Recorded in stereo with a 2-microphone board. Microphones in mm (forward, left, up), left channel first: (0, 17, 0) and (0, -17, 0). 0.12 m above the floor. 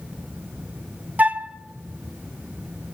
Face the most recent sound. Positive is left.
turn(degrees=-50)  # may be behind; listen again after turning